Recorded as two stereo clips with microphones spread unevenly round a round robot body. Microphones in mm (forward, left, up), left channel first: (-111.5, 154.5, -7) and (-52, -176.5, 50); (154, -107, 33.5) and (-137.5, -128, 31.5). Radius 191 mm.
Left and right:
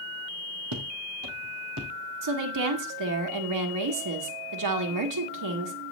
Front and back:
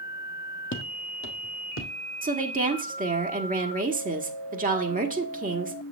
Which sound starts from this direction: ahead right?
Footsteps, at 0.7 s.